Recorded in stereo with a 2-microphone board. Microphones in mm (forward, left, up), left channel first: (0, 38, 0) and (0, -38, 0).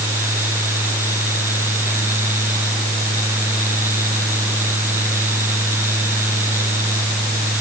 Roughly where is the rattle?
No rattle in this recording.